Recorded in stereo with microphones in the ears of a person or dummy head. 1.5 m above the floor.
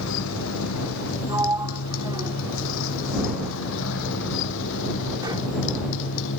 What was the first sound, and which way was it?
A motorcycle, 80° left.